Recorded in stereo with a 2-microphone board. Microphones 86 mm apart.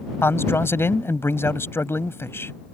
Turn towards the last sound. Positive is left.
turn(degrees=30)  # may be behind; listen again after turning